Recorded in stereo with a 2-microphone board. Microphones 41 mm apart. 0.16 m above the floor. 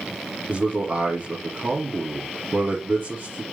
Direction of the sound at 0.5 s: 45° right (ahead or behind).